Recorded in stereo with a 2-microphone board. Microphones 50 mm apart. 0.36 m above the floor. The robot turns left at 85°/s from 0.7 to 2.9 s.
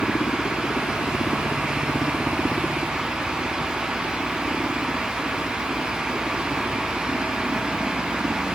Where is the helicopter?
125° left; by 8.6 s 60° right.